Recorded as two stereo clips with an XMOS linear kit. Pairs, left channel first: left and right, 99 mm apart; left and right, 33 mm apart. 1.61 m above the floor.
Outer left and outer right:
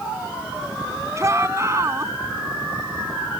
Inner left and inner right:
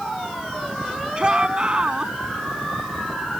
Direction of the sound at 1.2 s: 30° right (ahead or behind).